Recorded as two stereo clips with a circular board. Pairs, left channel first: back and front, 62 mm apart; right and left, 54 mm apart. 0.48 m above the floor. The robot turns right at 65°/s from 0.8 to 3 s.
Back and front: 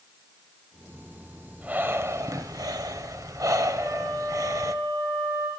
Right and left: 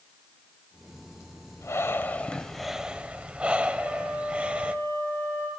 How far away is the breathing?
About 0.7 m.